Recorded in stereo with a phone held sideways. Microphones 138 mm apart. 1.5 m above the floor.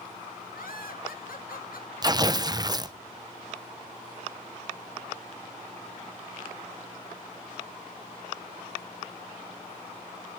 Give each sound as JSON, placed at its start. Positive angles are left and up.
{"t": 0.5, "sound": "laughter", "side_deg": 75, "distance_m": 2.5}
{"t": 2.0, "sound": "tearing paper", "side_deg": -30, "distance_m": 0.7}